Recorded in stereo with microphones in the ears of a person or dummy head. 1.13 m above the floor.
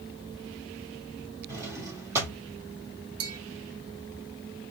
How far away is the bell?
About 1.6 m.